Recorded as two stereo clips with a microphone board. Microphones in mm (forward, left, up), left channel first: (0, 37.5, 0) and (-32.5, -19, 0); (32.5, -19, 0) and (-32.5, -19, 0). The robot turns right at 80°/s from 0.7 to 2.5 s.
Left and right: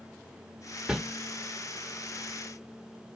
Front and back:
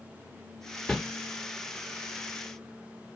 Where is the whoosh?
70° right, 1.0 m; by 1.0 s 60° right, 1.0 m.